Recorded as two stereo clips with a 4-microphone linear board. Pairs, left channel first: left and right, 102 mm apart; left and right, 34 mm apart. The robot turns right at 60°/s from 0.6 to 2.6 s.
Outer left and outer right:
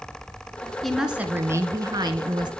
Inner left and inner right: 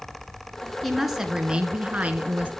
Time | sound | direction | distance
0.8 | a woman speaking | 175° left | 1.8 m